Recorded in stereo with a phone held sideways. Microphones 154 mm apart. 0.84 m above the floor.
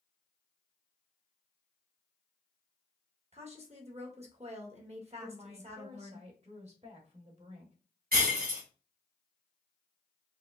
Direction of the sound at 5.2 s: 45° right (ahead or behind).